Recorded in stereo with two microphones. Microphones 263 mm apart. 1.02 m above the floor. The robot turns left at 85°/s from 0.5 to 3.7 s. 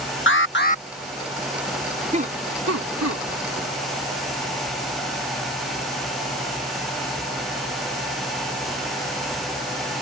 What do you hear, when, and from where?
0.3 s an alarm: 50° left (ahead or behind); by 0.8 s 20° left (ahead or behind)
2.1 s laughter: 25° right (ahead or behind); by 3.2 s 55° right (ahead or behind)